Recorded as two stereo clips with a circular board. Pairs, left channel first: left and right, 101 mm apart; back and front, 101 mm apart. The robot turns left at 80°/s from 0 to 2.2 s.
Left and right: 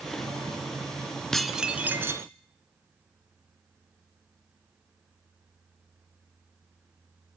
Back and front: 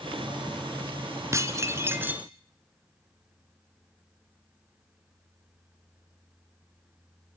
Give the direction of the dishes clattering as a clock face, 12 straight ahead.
12 o'clock.